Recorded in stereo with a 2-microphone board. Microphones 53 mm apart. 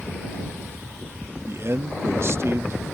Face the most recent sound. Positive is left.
turn(degrees=-55)  # may be behind; listen again after turning